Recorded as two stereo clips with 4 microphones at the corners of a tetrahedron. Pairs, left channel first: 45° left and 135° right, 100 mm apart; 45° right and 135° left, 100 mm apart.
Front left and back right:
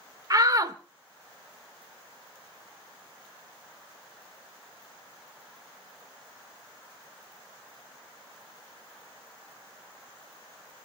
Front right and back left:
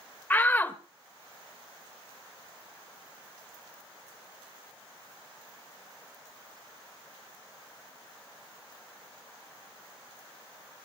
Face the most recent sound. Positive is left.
turn(degrees=-105)